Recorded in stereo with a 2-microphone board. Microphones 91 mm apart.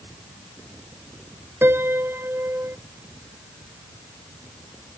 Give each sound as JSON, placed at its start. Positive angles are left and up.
{"t": 1.6, "sound": "a piano", "side_deg": -25}